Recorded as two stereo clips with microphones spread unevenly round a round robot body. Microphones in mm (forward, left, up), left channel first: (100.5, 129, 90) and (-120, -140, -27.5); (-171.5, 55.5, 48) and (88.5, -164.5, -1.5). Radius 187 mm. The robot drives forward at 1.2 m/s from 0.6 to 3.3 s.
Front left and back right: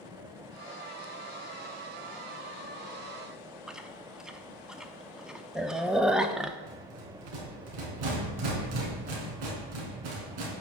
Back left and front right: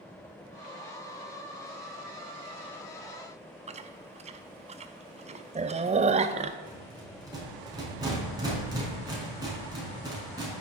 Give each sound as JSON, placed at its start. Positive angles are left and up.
{"t": 3.7, "sound": "chewing", "azimuth_deg": -80, "distance_m": 0.5}
{"t": 6.7, "sound": "a rattle", "azimuth_deg": -120, "distance_m": 4.5}